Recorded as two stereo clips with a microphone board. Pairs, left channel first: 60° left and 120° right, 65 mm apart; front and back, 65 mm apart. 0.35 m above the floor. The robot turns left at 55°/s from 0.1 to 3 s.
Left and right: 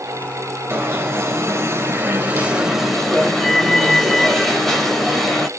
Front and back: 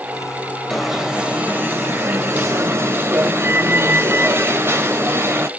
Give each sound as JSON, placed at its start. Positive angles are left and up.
{"t": 0.7, "sound": "an alarm", "azimuth_deg": -85, "distance_m": 3.0}